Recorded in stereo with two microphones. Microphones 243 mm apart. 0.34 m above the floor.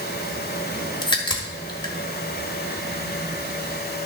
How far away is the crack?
About 1.6 m.